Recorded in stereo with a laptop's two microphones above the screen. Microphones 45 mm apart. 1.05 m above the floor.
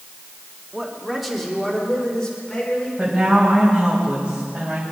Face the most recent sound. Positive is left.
turn(degrees=-20)  # may be behind; listen again after turning